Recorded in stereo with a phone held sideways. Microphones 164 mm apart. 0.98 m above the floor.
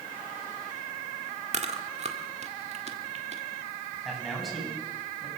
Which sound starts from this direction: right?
Chewing, at 1.5 s.